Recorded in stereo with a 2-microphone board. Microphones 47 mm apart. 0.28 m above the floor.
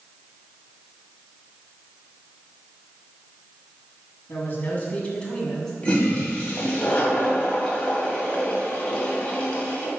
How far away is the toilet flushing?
About 2.0 m.